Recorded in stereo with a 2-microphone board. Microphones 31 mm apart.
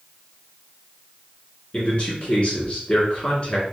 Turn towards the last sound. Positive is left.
turn(degrees=35)  # may be behind; listen again after turning